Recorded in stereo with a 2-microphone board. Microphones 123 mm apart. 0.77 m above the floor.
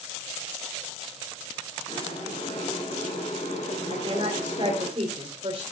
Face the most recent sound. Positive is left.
turn(degrees=-50)  # may be behind; listen again after turning